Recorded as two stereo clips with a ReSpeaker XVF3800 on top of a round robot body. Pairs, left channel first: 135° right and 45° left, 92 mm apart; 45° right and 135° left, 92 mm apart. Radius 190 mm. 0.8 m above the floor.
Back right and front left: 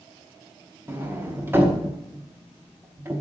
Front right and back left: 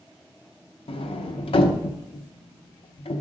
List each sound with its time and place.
0.9 s a sliding door: 25° right, 1.2 m